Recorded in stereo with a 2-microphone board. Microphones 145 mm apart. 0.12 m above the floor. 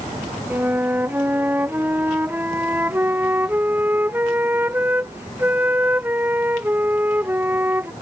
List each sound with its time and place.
0.5 s a flute: 15° right (ahead or behind)